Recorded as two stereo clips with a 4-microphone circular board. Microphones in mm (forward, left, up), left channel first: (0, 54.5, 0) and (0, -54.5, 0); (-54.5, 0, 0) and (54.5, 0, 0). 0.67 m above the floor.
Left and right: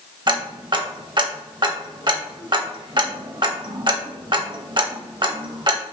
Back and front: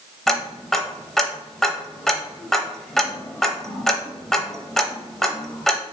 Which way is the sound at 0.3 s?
95° right.